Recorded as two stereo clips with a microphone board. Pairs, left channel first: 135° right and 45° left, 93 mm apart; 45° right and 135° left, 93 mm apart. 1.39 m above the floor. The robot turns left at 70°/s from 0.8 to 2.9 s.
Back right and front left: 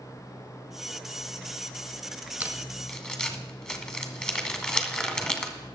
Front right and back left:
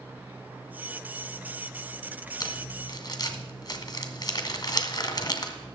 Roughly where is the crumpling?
Ahead right.